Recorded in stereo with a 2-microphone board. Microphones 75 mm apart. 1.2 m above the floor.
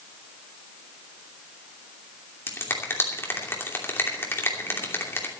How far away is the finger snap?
About 2.5 m.